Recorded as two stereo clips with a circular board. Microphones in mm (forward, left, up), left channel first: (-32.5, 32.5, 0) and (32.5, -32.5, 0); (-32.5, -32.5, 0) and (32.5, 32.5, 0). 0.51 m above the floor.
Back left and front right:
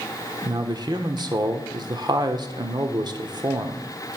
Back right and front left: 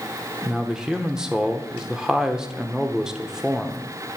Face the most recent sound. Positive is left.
turn(degrees=-35)